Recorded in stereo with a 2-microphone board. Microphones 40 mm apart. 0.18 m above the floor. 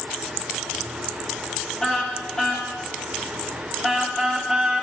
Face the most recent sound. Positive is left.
turn(degrees=-10)  # may be behind; listen again after turning